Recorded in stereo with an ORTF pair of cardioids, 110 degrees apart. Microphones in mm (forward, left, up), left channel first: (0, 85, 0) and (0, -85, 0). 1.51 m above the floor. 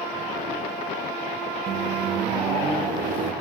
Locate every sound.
1.7 s a microwave: 65° right, 1.4 m